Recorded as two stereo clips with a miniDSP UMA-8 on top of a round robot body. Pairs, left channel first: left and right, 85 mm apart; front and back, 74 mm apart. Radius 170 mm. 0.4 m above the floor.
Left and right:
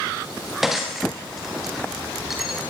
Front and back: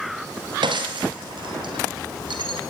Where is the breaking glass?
175° right, 5.5 m.